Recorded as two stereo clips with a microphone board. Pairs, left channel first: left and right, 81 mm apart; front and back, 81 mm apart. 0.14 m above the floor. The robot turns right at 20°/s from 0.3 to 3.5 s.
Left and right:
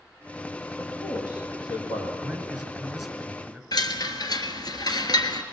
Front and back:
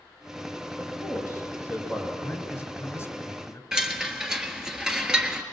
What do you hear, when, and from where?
0.8 s a man speaking: 45° left, 5 m; by 2.1 s 75° left, 5 m
2.2 s a man speaking: 20° right, 1.6 m; by 3.6 s 5° left, 1.6 m
3.7 s a chime: 100° left, 1.2 m